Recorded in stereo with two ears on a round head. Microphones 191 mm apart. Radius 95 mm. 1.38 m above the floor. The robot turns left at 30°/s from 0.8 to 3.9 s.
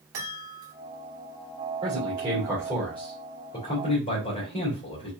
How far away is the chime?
About 2.5 m.